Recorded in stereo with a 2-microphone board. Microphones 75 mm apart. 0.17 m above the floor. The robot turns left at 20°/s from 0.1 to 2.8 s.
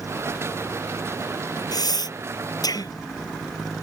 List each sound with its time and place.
1.7 s breathing: 70° left (ahead or behind); by 2.9 s 65° left (ahead or behind)